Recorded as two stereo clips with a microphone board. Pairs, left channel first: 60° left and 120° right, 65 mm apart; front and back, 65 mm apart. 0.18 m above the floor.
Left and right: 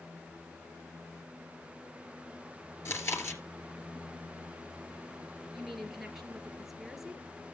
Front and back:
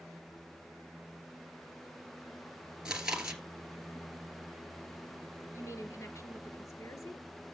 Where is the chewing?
105° left, 2.5 m.